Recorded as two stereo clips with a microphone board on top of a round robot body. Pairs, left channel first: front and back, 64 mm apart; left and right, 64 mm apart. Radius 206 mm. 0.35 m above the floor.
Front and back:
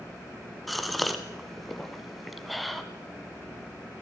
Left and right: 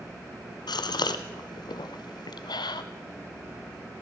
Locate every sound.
0.7 s a gasp: 90° left, 0.8 m